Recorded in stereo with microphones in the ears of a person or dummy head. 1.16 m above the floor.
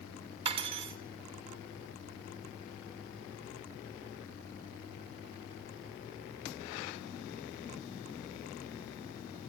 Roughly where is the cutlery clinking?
Right.